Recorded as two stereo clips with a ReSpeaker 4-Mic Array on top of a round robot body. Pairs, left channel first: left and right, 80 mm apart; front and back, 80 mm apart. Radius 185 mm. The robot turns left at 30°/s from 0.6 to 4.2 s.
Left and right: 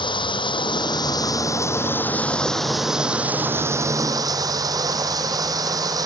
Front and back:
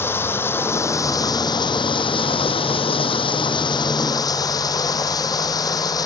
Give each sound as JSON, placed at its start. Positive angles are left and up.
{"t": 0.0, "sound": "running water", "azimuth_deg": 65}